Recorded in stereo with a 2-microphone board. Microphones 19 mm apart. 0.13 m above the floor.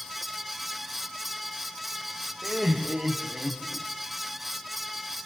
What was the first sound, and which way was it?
Laughter, 5° left (ahead or behind).